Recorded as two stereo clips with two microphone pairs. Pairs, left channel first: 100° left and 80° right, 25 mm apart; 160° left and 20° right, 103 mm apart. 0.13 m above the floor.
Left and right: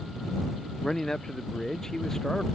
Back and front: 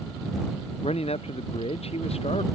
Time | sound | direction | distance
0.8 | a man speaking | 170° left | ?